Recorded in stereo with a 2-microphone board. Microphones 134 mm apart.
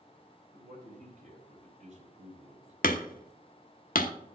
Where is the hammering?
90° left, 0.8 m.